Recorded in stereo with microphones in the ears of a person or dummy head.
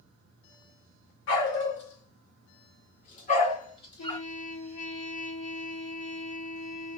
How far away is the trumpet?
About 1.7 m.